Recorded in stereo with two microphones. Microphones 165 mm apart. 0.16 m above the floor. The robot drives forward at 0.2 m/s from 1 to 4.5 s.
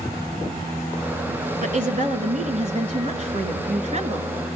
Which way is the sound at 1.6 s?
50° right (ahead or behind).